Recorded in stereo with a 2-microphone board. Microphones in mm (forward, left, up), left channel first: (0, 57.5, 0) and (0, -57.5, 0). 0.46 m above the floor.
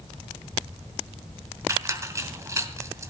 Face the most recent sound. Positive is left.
turn(degrees=-25)  # may be behind; listen again after turning